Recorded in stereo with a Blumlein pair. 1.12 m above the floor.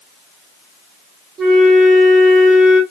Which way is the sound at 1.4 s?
20° right.